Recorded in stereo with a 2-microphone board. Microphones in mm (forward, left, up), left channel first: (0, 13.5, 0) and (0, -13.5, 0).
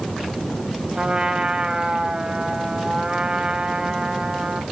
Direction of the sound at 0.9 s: 40° right (ahead or behind).